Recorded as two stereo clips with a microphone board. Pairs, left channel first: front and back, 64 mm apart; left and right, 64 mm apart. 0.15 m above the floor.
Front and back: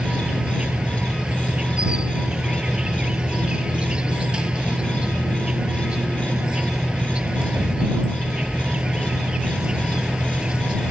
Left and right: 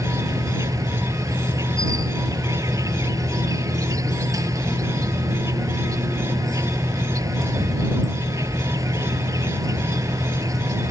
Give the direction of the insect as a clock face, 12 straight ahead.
4 o'clock.